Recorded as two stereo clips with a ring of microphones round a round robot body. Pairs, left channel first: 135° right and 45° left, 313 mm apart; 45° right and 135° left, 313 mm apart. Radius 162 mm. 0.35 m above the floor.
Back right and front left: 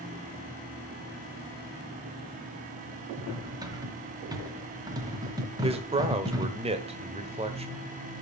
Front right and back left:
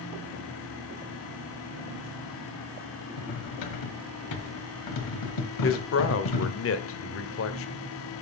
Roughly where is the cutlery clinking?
Ahead right.